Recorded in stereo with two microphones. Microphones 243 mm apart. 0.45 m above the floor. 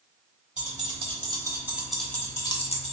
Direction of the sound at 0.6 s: 30° right (ahead or behind).